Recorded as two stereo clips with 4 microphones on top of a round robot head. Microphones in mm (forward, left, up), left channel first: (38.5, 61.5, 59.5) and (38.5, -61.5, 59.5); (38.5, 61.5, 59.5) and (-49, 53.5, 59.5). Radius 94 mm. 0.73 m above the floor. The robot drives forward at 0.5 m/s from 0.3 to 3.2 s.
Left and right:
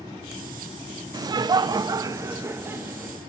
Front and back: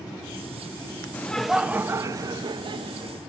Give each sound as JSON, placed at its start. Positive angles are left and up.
{"t": 1.1, "sound": "laughter", "azimuth_deg": -55, "distance_m": 0.5}